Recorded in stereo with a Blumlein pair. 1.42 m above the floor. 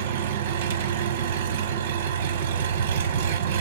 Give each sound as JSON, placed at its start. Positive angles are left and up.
{"t": 0.0, "sound": "an engine running", "azimuth_deg": -55, "distance_m": 0.8}